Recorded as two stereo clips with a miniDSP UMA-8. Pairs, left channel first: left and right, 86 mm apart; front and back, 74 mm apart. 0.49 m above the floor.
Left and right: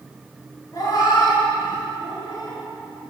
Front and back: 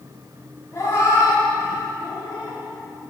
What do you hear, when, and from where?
0.7 s a cat meowing: 45° left, 1.9 m